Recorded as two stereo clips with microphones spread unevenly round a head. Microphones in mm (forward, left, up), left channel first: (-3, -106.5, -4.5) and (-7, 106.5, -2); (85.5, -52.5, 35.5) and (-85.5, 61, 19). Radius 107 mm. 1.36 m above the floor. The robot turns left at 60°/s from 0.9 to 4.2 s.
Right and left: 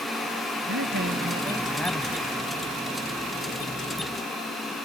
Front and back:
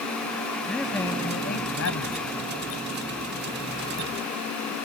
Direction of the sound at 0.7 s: 50° left.